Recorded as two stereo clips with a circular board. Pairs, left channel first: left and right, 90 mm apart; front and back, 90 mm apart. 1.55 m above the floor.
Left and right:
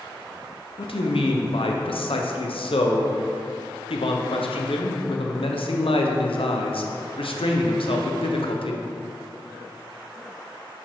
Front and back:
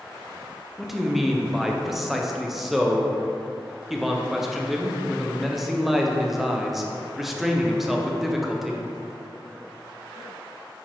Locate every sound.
0.8 s a man speaking: 90° left, 0.8 m